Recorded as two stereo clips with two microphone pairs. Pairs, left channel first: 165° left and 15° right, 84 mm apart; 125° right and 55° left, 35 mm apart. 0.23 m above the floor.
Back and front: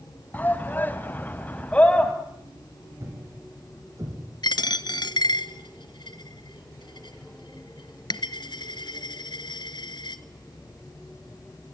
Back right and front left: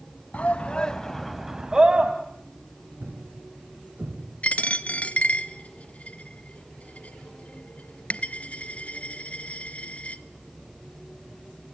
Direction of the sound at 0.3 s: 135° right.